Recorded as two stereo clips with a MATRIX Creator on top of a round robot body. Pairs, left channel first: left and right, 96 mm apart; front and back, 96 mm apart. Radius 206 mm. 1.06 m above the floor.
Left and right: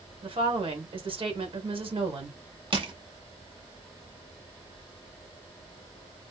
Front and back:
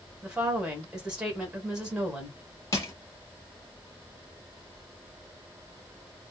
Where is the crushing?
60° right, 1.3 m.